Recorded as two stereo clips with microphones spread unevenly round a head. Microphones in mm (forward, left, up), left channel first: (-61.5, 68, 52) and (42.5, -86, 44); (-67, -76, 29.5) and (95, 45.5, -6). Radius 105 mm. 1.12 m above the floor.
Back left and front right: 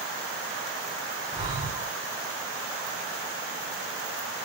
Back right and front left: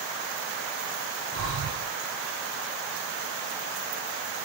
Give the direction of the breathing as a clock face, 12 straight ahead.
12 o'clock.